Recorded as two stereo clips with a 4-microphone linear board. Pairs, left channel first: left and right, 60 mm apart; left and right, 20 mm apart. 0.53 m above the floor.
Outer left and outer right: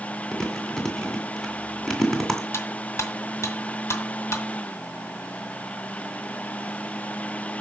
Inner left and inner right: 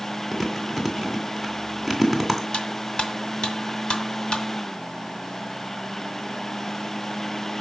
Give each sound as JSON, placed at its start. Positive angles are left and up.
{"t": 0.3, "sound": "chewing", "side_deg": 5, "distance_m": 2.5}
{"t": 2.5, "sound": "cutlery clinking", "side_deg": 55, "distance_m": 1.8}